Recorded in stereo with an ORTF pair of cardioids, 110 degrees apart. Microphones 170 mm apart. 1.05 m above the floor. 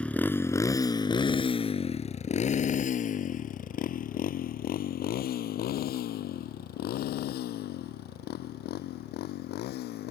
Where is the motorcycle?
5° left; by 10.1 s 75° left.